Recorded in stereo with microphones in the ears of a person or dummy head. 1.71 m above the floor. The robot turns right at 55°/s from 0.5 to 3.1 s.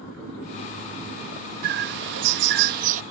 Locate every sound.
1.6 s a bird: 120° right; by 3.0 s 45° right